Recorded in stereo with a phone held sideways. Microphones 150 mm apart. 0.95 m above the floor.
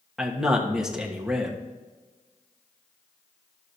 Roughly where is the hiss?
I don't hear a hiss.